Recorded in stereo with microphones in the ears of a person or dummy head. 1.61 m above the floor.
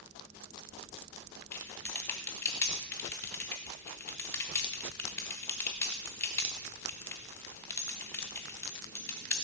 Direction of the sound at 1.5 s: 15° left (ahead or behind).